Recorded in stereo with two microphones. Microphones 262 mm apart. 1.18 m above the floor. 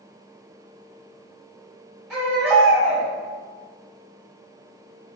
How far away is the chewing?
I don't hear chewing.